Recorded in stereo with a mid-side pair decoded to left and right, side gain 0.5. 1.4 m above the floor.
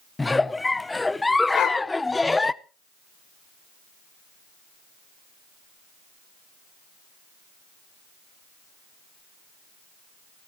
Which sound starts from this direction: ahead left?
A dog barking, at 1.5 s.